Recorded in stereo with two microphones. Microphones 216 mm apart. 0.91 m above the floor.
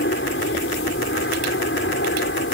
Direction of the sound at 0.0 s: 65° left (ahead or behind).